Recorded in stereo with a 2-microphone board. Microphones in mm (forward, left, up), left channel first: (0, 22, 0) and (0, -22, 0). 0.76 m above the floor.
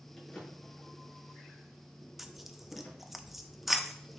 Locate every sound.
0.2 s a drawer: 5° left (ahead or behind), 5 m
2.2 s tearing paper: 5° right (ahead or behind), 0.6 m